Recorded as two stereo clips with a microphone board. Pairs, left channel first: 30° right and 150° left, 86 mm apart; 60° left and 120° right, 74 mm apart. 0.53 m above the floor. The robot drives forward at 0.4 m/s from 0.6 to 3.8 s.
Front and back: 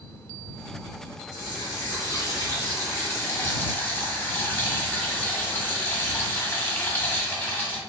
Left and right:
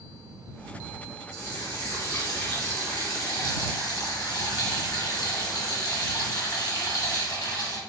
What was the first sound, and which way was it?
A running tap, 15° left.